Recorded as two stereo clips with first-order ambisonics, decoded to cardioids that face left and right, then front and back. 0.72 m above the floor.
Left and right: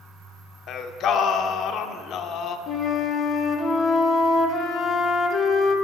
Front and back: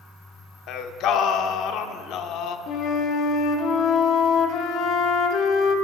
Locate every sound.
0.7 s singing: 40° left, 0.6 m
2.7 s a flute: 35° left, 0.9 m